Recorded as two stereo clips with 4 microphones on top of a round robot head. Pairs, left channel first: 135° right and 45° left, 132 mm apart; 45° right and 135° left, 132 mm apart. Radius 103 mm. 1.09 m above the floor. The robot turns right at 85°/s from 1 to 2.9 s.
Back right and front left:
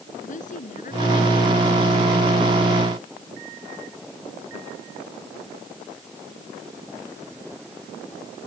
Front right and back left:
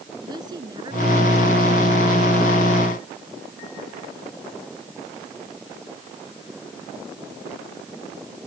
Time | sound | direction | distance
0.2 | a woman speaking | 165° right | ?